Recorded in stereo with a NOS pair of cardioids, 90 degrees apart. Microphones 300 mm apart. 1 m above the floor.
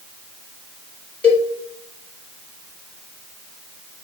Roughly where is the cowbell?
Ahead.